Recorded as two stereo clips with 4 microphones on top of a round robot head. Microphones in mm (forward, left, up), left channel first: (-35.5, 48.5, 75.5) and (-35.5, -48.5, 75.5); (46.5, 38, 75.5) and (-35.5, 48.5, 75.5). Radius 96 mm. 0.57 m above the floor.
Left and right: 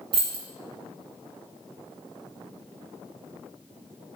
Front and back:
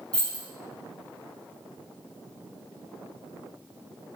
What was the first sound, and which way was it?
Keys jangling, 85° right.